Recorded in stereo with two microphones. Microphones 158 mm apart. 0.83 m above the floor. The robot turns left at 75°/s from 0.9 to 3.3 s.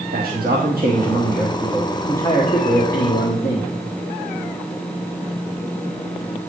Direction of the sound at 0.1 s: 105° right.